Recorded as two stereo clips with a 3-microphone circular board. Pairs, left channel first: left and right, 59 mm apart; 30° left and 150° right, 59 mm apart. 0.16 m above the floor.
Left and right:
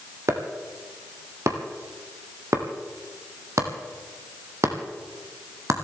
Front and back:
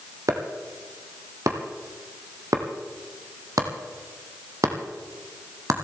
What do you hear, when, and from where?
0.3 s chopping: 125° right, 2.5 m